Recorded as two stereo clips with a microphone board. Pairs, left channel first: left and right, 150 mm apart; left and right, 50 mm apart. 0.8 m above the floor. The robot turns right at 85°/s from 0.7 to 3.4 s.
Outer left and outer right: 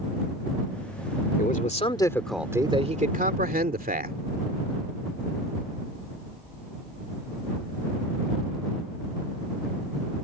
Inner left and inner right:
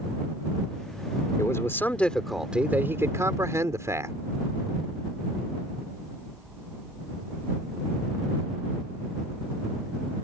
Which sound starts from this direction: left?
A man speaking, at 1.4 s.